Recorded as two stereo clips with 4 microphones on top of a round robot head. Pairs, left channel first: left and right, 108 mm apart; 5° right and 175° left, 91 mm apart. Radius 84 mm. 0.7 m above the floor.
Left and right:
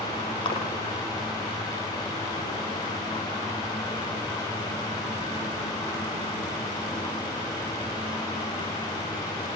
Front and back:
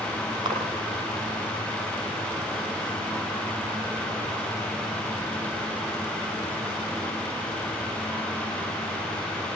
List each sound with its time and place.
0.5 s a splash: 135° left, 7 m